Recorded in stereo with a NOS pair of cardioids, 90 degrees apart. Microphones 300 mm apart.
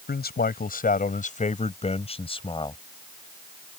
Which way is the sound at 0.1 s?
35° left.